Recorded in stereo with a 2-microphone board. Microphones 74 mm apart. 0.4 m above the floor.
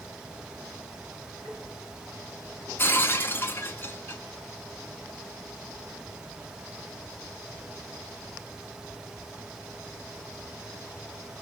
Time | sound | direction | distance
1.4 | tapping | 65° right (ahead or behind) | 5.5 m
2.8 | breaking glass | 30° left (ahead or behind) | 1.1 m